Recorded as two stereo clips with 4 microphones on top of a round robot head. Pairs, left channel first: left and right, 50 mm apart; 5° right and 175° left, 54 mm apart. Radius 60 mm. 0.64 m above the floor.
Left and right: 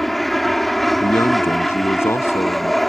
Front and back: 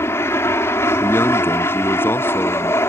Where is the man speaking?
40° left.